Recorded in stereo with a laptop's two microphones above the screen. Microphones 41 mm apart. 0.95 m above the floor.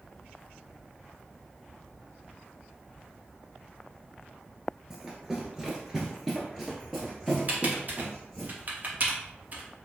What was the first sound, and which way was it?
Running footsteps, 15° right (ahead or behind).